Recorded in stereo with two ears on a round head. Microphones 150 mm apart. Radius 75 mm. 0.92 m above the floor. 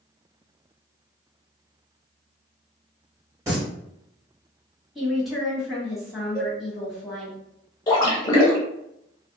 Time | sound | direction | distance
3.5 | singing | 20° right (ahead or behind) | 1.6 m
5.0 | a woman speaking | centre (ahead or behind) | 1.5 m
6.3 | a cowbell | 20° left (ahead or behind) | 0.8 m
7.9 | a splash | 25° left (ahead or behind) | 0.9 m